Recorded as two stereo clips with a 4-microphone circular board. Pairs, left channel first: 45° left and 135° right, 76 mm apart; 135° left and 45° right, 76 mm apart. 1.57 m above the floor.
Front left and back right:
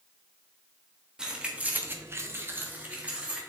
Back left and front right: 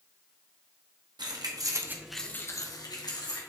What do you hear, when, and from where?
1.2 s keys jangling: 55° right, 1.6 m; by 3.4 s 150° left, 2 m